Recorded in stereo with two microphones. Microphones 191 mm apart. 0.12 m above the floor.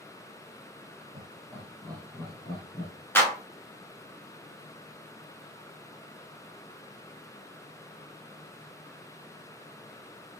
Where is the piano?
I don't hear a piano.